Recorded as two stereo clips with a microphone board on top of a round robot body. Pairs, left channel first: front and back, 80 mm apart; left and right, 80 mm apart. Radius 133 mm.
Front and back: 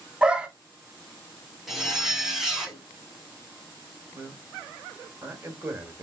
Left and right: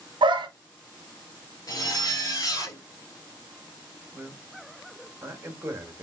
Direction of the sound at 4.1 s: 130° right.